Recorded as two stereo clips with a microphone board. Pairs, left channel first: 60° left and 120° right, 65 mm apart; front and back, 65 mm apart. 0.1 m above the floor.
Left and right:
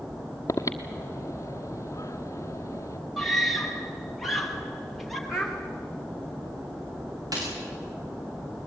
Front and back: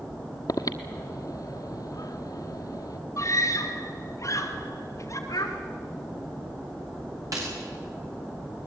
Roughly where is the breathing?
Ahead.